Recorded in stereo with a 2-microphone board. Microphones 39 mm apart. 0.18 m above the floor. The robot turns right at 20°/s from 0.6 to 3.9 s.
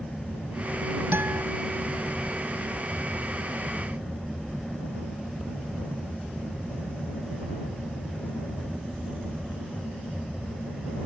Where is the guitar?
75° right (ahead or behind); by 1.4 s 70° right (ahead or behind).